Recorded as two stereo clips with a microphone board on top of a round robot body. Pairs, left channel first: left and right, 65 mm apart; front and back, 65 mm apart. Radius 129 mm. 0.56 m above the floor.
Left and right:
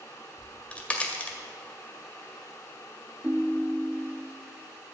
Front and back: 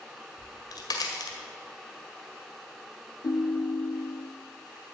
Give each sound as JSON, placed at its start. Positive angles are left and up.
{"t": 0.4, "sound": "a crack", "azimuth_deg": 20, "distance_m": 2.0}
{"t": 3.2, "sound": "a ringtone", "azimuth_deg": -20, "distance_m": 0.8}